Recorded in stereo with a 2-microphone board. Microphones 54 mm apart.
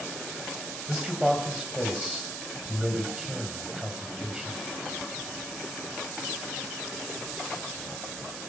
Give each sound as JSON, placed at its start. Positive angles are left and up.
{"t": 0.9, "sound": "a man speaking", "side_deg": -10, "distance_m": 3.0}